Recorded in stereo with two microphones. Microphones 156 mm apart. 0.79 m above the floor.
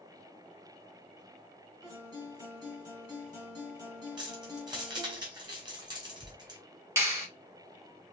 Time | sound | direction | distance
1.8 | a guitar | 25° right (ahead or behind) | 2 m
4.2 | keys jangling | 30° right (ahead or behind) | 2 m
7.0 | a clap | 15° right (ahead or behind) | 1.7 m